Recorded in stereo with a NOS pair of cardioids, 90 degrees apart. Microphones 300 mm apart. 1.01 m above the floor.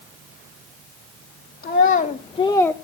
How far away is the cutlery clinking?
I don't hear cutlery clinking.